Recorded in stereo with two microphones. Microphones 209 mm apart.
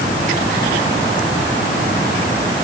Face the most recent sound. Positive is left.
No sound to turn to.